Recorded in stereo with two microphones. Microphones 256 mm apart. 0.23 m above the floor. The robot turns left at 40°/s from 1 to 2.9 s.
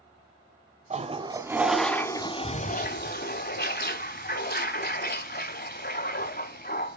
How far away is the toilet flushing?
About 0.9 m.